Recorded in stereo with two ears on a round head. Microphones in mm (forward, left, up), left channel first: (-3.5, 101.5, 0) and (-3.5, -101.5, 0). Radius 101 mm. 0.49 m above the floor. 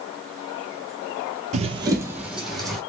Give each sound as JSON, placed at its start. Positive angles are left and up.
{"t": 1.5, "sound": "running footsteps", "side_deg": -35, "distance_m": 0.6}